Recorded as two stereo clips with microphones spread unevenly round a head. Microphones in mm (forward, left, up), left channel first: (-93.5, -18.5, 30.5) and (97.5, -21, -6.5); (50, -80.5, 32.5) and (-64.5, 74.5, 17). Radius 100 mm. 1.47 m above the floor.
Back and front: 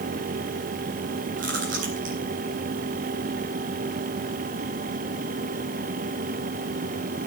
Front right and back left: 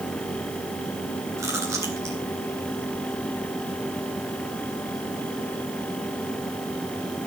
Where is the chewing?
50° left, 4.5 m.